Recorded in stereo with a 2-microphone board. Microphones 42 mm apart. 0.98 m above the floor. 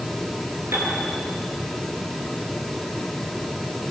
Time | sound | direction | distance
0.7 | a piano | 85° right | 6.5 m